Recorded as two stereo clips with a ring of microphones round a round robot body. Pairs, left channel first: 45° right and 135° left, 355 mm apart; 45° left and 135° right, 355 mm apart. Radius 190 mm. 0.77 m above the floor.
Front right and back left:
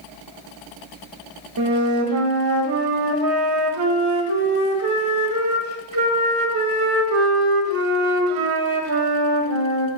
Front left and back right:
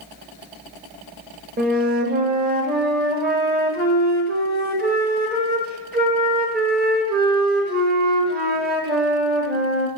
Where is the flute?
165° left, 1.4 m.